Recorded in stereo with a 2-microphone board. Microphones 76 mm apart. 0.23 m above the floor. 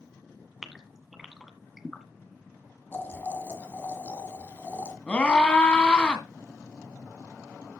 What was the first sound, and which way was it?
A gasp, 5° right (ahead or behind).